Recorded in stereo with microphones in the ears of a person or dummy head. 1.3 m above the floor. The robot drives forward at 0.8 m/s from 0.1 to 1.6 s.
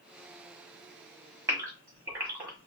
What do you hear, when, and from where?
1.5 s a gasp: 15° right (ahead or behind), 1.2 m